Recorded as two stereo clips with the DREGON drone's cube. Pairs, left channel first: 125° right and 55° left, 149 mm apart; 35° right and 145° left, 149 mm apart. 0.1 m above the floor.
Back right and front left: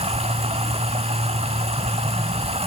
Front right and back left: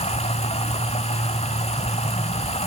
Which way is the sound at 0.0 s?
10° left.